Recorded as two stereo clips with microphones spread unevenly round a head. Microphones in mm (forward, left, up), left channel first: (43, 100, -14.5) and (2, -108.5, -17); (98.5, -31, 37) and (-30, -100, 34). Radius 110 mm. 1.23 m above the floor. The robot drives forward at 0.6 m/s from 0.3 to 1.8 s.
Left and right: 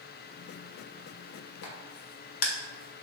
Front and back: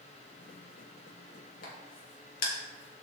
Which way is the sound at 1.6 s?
60° left.